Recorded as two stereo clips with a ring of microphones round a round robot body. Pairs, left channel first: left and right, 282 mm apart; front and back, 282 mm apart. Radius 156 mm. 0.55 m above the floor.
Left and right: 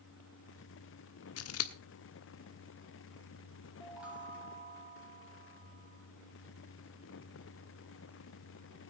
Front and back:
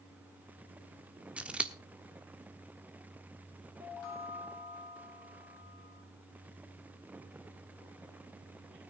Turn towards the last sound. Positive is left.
turn(degrees=-5)